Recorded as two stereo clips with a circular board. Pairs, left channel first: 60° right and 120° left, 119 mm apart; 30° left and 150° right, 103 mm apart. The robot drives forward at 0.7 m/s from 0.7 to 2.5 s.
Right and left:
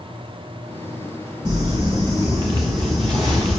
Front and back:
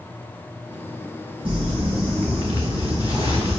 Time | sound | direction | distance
1.4 | crumpling | 175° left | 3.5 m